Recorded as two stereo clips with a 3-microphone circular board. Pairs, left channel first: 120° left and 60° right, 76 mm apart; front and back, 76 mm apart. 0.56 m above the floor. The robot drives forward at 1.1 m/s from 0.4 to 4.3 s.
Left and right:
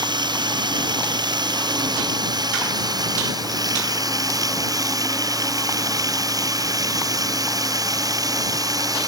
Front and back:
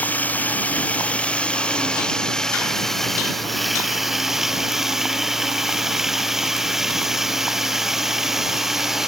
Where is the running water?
70° right; by 9.1 s 95° right.